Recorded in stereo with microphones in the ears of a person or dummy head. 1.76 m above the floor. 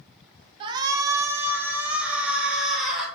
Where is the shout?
35° right (ahead or behind), 0.6 m; by 3.1 s 5° right (ahead or behind), 1.9 m.